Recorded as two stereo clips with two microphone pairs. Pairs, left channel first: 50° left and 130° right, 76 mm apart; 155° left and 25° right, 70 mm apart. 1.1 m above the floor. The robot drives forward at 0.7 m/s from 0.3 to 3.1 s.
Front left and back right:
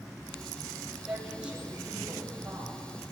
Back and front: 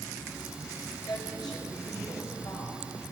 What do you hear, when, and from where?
1.1 s a woman speaking: 155° left, 6 m